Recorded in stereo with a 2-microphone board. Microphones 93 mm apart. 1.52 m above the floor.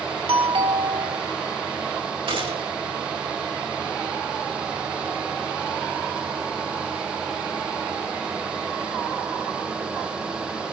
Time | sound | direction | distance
0.3 | a doorbell | 75° right (ahead or behind) | 4 m
2.3 | a gunshot | 65° right (ahead or behind) | 8 m